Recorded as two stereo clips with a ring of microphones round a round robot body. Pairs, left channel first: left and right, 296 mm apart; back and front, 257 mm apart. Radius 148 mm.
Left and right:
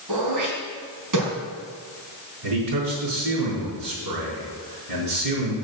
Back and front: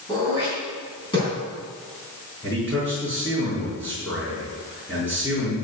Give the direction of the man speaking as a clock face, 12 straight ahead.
3 o'clock.